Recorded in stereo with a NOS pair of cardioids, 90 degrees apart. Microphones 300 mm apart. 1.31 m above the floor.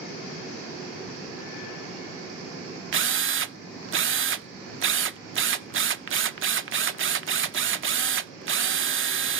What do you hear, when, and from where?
2.9 s a drill: 45° right, 0.5 m